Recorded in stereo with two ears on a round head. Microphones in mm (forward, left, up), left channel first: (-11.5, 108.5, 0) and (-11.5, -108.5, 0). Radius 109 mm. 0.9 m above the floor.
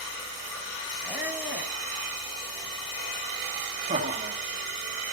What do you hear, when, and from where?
1.0 s a squeak: 10° right (ahead or behind), 1.7 m
3.9 s laughter: 30° right (ahead or behind), 1.8 m